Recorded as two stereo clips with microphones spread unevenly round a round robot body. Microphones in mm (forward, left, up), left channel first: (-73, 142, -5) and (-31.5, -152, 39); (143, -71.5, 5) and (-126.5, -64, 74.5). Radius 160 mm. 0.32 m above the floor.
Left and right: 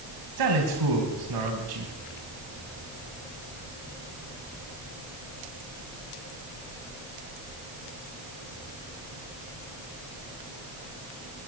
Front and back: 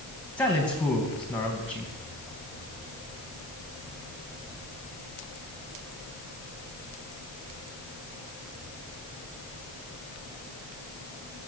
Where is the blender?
I don't hear a blender.